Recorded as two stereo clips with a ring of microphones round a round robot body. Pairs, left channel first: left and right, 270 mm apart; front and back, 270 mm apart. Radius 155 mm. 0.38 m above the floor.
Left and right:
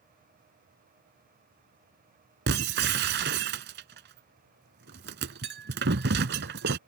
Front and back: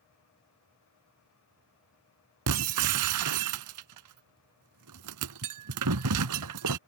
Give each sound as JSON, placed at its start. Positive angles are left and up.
{"t": 2.5, "sound": "breaking glass", "azimuth_deg": -145}